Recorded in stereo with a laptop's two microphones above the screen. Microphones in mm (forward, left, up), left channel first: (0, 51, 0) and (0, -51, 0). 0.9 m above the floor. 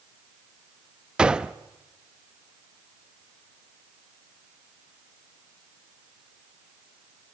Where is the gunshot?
10° right (ahead or behind), 0.6 m.